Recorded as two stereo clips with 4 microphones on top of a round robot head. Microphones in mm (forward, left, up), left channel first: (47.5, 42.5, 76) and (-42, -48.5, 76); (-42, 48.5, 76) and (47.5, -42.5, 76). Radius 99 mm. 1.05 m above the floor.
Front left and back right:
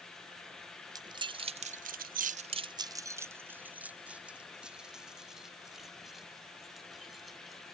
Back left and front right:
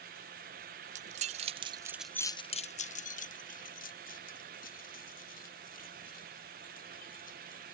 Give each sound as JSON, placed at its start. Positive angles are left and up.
{"t": 0.9, "sound": "keys jangling", "azimuth_deg": -75}